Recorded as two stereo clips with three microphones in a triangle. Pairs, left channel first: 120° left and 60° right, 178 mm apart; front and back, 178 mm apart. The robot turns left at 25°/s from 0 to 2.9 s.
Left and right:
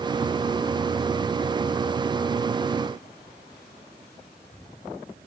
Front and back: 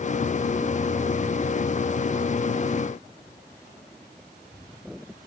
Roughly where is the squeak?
I don't hear a squeak.